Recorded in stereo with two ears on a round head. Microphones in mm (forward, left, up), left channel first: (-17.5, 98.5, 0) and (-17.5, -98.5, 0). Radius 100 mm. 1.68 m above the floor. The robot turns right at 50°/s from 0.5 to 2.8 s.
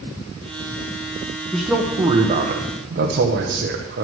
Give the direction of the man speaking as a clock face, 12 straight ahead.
6 o'clock.